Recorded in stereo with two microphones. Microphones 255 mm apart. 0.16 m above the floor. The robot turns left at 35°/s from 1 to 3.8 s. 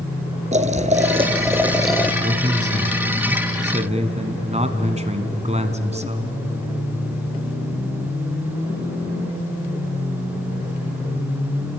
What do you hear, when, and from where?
0.5 s boiling: 150° right, 1.0 m; by 2.1 s 170° left, 1.0 m
2.2 s a man speaking: 60° right, 1.5 m; by 6.3 s 115° right, 1.5 m